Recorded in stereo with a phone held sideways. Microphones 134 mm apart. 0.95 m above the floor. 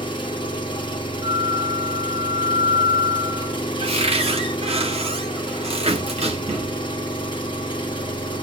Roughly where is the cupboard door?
Right.